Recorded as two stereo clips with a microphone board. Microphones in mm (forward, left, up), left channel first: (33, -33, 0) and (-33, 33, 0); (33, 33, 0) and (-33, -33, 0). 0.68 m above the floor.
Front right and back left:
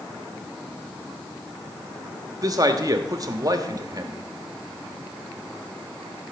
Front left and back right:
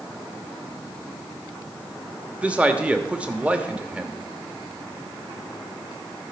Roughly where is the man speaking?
Behind left.